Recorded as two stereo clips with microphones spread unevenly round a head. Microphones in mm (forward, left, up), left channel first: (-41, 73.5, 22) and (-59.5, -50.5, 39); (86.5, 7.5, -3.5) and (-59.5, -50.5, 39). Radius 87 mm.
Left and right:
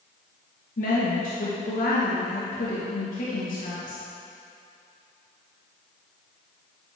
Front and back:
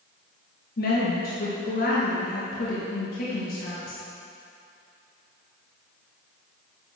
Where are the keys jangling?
I don't hear keys jangling.